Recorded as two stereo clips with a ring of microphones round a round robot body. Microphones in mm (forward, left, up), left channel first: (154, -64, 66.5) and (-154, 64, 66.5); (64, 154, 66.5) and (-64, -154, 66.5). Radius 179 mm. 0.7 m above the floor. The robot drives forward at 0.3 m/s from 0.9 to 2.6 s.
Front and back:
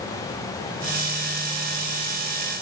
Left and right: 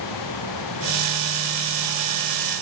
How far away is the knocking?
No knocking in this recording.